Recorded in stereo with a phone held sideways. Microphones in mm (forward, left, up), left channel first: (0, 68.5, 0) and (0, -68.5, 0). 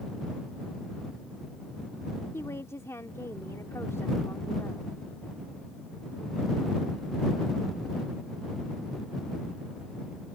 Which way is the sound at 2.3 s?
20° left (ahead or behind).